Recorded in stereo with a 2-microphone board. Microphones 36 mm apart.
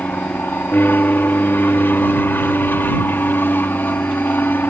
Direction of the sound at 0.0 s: 70° left (ahead or behind).